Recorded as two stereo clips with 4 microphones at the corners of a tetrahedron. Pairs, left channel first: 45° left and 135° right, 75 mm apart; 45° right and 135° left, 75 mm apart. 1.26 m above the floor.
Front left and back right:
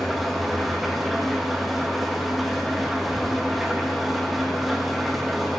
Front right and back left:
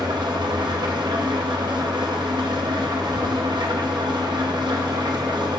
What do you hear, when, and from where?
0.0 s an engine running: 135° left, 1.1 m